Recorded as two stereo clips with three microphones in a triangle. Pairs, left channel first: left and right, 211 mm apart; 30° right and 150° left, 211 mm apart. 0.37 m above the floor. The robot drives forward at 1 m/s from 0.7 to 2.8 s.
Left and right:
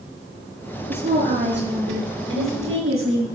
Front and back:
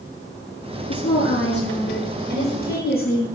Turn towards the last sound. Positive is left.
turn(degrees=-70)